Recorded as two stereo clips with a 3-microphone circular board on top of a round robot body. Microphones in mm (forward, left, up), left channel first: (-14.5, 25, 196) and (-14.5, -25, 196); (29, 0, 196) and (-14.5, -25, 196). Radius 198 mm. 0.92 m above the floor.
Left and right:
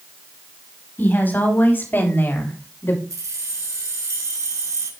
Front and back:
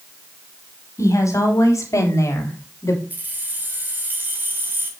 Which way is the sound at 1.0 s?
35° left.